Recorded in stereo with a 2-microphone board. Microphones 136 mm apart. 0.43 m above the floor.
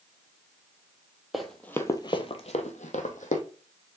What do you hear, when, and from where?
1.3 s running footsteps: centre (ahead or behind), 0.7 m; by 3.4 s 70° left (ahead or behind), 1.1 m